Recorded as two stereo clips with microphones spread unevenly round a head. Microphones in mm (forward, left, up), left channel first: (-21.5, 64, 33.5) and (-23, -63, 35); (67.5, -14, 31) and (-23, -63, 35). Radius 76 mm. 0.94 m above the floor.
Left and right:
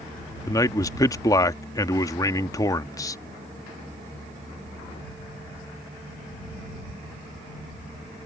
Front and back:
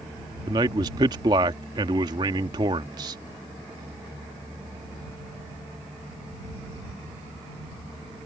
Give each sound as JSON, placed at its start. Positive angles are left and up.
{"t": 0.5, "sound": "a man speaking", "azimuth_deg": 150}